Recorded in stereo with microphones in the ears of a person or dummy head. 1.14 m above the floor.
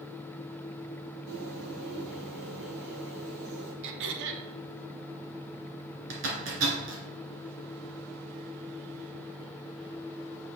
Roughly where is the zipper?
Right.